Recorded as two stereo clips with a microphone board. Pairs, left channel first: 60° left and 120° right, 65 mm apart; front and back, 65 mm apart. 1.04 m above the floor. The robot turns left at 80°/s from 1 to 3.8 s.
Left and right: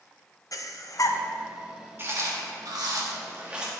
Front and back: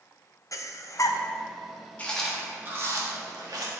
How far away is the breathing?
About 0.5 m.